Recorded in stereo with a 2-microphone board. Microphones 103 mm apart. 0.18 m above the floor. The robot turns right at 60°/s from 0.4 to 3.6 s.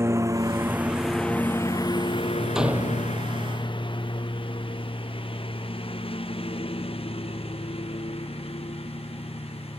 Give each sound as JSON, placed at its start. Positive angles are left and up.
{"t": 0.0, "sound": "a lawn mower", "side_deg": -25}
{"t": 2.5, "sound": "a door slam", "azimuth_deg": -175}